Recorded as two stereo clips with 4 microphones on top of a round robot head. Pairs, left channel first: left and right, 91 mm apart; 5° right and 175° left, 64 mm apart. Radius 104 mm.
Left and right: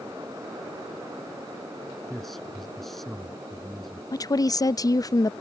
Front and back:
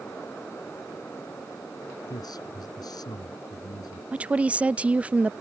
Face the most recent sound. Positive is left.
turn(degrees=115)